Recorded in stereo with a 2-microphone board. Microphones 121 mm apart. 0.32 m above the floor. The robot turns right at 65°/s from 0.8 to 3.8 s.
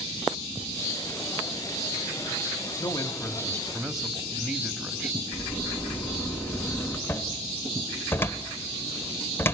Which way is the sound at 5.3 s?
20° left (ahead or behind).